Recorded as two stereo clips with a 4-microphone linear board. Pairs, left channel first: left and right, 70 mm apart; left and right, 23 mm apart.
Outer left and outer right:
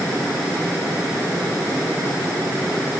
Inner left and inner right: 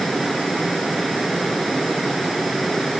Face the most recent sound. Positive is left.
No sound to turn to.